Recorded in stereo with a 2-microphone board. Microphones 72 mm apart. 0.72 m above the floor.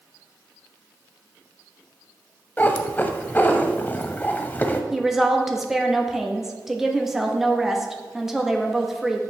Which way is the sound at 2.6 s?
25° left (ahead or behind).